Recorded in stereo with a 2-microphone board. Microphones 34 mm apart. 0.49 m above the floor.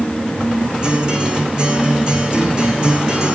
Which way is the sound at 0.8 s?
30° right (ahead or behind).